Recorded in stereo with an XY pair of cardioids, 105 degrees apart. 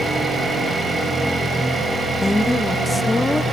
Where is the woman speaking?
15° left, 1.0 m.